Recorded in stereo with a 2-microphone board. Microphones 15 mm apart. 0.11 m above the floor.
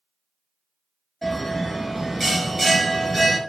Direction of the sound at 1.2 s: 5° left (ahead or behind).